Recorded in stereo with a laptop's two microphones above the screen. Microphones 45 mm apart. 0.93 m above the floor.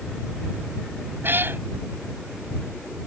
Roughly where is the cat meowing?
Right.